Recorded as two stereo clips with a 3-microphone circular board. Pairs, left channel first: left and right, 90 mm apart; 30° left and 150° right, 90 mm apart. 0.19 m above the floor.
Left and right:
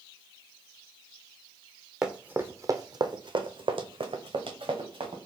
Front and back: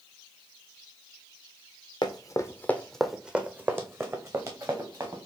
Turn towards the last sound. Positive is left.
turn(degrees=-105)